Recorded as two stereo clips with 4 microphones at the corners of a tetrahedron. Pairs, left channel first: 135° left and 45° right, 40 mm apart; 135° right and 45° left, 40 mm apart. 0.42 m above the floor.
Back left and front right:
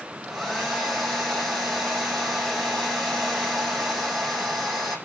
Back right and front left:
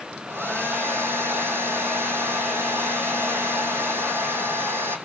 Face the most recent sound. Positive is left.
turn(degrees=45)